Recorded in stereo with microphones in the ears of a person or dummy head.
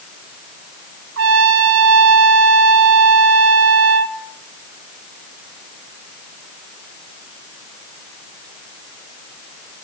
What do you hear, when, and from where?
1.2 s a trumpet: 75° right (ahead or behind), 0.9 m